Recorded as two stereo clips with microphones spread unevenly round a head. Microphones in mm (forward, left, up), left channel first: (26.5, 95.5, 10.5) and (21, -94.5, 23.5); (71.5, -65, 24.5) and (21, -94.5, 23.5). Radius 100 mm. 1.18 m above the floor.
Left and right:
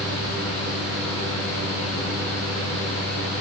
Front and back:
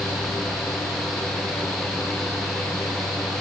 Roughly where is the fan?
Behind left.